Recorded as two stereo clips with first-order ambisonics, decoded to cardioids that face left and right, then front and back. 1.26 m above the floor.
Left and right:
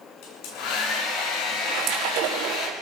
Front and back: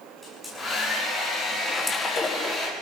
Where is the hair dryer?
85° left, 8.5 m.